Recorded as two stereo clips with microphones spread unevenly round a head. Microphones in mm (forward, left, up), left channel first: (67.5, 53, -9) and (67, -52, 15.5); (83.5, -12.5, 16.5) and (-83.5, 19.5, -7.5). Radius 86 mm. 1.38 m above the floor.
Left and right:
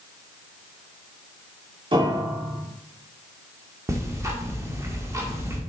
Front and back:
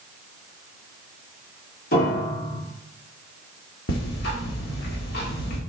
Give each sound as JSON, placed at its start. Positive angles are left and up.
{"t": 1.9, "sound": "a piano", "azimuth_deg": -50, "distance_m": 3.5}
{"t": 3.9, "sound": "ticking", "azimuth_deg": -35, "distance_m": 2.0}